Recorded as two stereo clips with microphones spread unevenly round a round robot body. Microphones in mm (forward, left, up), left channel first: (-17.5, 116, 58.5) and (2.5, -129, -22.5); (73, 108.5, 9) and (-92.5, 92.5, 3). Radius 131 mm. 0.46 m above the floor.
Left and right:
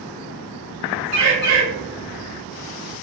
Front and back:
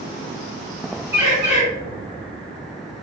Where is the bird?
95° right, 1.8 m.